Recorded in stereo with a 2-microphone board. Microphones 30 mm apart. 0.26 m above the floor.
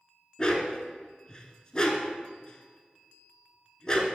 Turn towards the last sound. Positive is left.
turn(degrees=25)  # may be behind; listen again after turning